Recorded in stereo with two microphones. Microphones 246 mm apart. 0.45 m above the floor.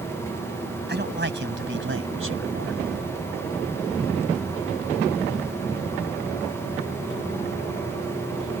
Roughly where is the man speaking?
Right.